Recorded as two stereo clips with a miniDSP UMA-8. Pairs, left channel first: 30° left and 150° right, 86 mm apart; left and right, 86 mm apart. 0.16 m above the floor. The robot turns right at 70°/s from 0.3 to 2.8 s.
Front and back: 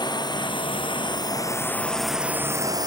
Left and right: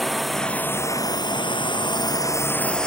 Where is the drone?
Straight ahead; by 2.9 s 170° left.